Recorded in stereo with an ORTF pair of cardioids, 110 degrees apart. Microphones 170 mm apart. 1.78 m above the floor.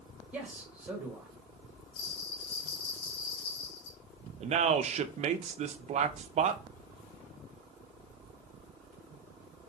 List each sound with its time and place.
0.3 s a man speaking: 10° right, 2.0 m
1.9 s a bell: 65° left, 1.1 m
4.4 s a man speaking: 40° right, 0.6 m